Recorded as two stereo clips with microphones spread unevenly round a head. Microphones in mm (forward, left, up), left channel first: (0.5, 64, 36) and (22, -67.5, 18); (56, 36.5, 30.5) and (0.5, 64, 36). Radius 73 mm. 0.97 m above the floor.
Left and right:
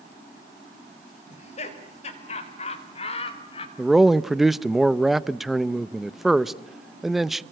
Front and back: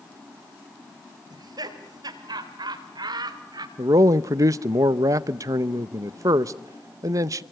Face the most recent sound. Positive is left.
turn(degrees=-165)